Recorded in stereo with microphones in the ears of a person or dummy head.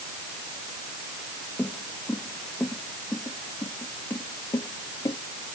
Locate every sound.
1.6 s footsteps: 10° left (ahead or behind); by 5.2 s 20° left (ahead or behind)